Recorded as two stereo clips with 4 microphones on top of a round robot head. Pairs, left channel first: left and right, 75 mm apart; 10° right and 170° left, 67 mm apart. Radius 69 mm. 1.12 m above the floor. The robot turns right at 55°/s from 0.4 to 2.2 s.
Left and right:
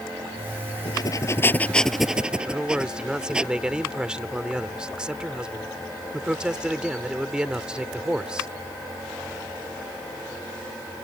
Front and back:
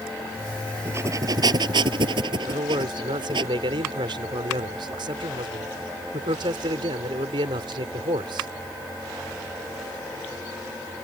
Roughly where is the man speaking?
Behind.